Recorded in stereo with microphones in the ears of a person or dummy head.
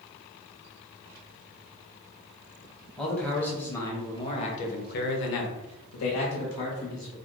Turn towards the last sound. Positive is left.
turn(degrees=55)  # may be behind; listen again after turning